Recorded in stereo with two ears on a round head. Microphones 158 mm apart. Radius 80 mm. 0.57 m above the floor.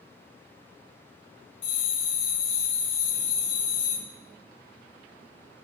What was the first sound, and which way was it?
A bell, 35° left (ahead or behind).